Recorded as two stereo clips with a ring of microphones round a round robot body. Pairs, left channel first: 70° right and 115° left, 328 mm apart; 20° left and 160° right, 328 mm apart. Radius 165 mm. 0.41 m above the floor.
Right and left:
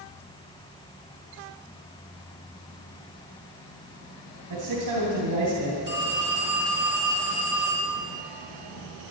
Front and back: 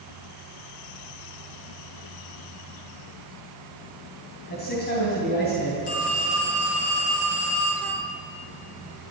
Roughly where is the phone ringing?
Ahead left.